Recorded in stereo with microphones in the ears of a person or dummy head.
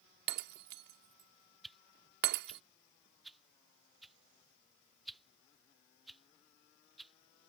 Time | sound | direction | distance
0.3 | breaking glass | 50° right (ahead or behind) | ?
1.6 | a whoosh | centre (ahead or behind) | ?